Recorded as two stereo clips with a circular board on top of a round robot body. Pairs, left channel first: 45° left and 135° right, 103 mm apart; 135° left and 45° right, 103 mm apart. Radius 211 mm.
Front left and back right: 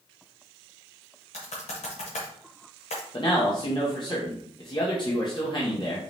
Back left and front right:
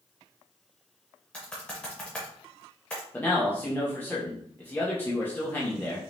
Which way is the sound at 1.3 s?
55° left.